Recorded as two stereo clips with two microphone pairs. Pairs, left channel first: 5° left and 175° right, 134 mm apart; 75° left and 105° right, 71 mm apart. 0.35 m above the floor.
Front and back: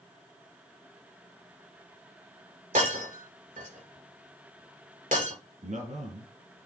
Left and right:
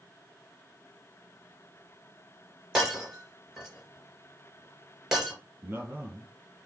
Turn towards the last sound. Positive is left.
turn(degrees=-160)